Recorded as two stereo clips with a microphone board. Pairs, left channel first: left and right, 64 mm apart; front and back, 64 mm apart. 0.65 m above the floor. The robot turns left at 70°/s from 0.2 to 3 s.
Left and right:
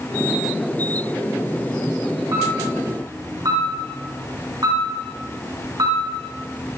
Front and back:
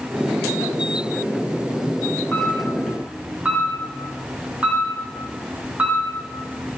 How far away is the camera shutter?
About 4.5 m.